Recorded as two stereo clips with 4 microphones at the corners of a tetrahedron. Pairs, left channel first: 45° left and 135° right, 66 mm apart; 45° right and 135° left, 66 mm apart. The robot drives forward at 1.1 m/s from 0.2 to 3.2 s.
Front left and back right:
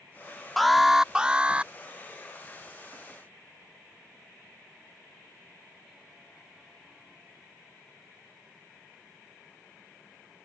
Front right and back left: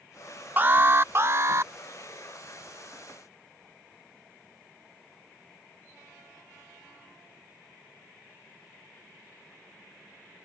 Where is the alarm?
130° left; by 1.7 s 160° left.